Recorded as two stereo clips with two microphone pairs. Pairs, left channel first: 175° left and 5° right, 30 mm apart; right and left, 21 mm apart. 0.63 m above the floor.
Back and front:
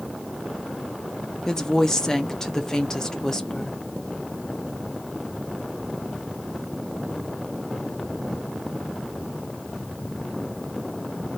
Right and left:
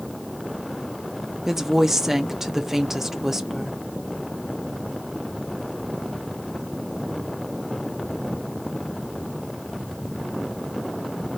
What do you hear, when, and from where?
1.5 s a woman speaking: 130° left, 0.6 m